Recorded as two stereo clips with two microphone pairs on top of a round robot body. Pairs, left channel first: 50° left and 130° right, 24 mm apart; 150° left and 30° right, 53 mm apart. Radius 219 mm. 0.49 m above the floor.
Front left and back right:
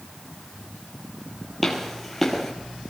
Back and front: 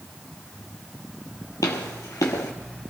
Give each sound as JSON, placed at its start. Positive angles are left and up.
{"t": 1.6, "sound": "footsteps", "azimuth_deg": 135, "distance_m": 1.0}